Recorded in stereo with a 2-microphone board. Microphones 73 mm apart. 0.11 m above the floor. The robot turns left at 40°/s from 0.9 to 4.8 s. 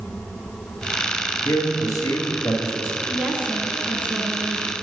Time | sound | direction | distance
1.4 | a man speaking | 95° left | 1.9 m
3.1 | a woman speaking | 20° right (ahead or behind) | 1.2 m